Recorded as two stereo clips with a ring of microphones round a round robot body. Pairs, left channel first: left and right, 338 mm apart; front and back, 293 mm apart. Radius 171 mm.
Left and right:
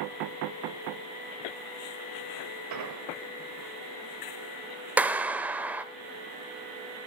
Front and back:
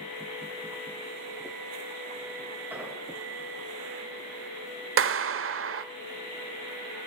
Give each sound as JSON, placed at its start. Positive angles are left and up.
{"t": 2.7, "sound": "an explosion", "azimuth_deg": -95, "distance_m": 2.0}
{"t": 5.0, "sound": "a clap", "azimuth_deg": -175, "distance_m": 1.1}